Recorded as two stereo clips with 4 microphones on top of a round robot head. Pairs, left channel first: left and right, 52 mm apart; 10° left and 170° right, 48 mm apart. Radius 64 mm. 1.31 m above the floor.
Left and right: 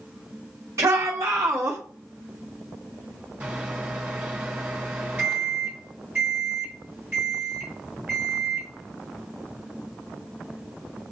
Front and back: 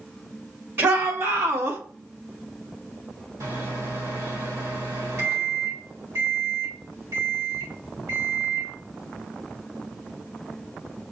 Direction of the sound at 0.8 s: 120° right.